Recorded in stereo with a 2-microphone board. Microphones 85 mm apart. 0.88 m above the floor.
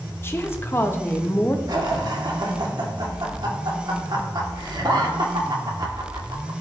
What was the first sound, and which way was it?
A woman speaking, 30° left (ahead or behind).